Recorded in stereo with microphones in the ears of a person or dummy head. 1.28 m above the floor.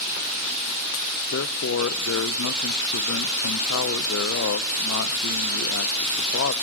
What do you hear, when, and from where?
1.3 s a man speaking: 70° left (ahead or behind), 0.8 m